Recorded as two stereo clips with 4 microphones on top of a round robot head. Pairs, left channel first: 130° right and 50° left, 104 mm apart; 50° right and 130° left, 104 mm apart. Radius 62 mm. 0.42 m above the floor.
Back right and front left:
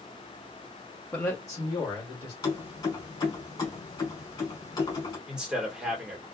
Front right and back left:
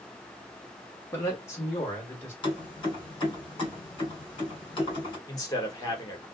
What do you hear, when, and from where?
1.1 s a man speaking: 80° right, 1.1 m; by 2.3 s 110° right, 1.8 m
2.4 s keys jangling: 85° right, 1.8 m
5.3 s a man speaking: 30° right, 1.3 m